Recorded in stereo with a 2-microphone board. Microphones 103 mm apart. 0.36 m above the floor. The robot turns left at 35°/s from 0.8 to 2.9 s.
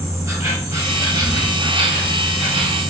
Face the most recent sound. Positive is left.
turn(degrees=-105)